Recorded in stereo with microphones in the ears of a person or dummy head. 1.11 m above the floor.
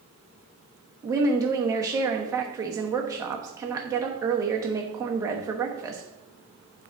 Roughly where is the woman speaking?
Centre.